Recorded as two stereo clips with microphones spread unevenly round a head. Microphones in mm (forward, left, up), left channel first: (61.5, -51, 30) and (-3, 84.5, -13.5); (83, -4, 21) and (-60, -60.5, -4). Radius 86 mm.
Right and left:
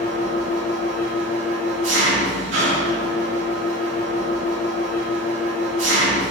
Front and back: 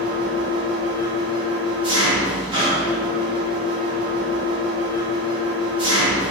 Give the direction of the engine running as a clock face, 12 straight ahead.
7 o'clock.